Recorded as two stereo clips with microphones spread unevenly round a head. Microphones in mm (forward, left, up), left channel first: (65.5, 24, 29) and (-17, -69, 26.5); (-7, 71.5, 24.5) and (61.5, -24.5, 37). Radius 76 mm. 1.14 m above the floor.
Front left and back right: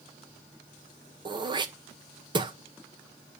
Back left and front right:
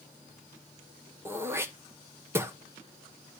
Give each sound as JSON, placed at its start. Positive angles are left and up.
{"t": 1.2, "sound": "throat clearing", "azimuth_deg": -120, "distance_m": 0.8}